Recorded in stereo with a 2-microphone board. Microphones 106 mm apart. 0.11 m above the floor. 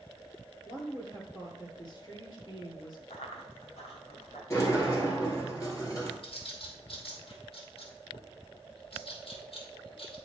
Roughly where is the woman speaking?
Left.